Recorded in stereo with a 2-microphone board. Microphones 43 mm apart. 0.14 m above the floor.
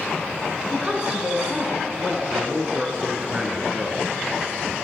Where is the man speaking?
20° right (ahead or behind), 1.1 m.